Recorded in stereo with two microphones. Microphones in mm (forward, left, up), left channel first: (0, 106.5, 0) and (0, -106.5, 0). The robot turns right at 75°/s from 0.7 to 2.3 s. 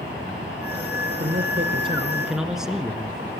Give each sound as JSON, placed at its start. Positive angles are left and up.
{"t": 1.2, "sound": "a man speaking", "azimuth_deg": -85, "distance_m": 1.4}